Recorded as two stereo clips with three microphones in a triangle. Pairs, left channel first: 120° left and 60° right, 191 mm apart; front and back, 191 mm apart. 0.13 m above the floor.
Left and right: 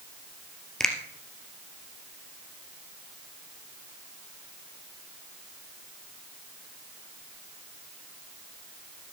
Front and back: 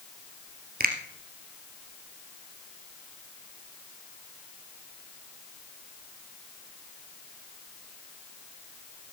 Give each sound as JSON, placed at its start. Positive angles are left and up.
{"t": 0.8, "sound": "a finger snap", "azimuth_deg": -155, "distance_m": 2.5}